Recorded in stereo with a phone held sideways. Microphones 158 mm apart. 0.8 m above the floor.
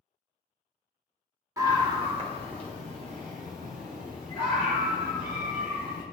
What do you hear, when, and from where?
1.6 s a scream: 25° right (ahead or behind), 1.9 m; by 6.0 s 70° right (ahead or behind), 7.5 m